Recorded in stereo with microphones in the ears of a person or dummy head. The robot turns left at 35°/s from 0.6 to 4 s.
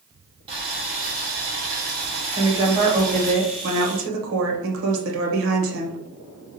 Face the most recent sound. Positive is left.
turn(degrees=-70)